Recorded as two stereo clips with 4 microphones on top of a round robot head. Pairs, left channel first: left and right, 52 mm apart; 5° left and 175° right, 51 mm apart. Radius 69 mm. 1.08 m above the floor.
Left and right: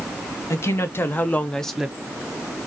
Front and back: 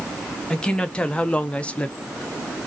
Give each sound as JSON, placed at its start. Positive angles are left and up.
{"t": 0.5, "sound": "a woman speaking", "azimuth_deg": 80, "distance_m": 0.9}